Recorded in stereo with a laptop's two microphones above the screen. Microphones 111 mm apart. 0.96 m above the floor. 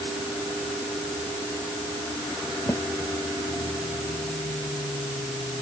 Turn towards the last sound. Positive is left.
turn(degrees=30)  # may be behind; listen again after turning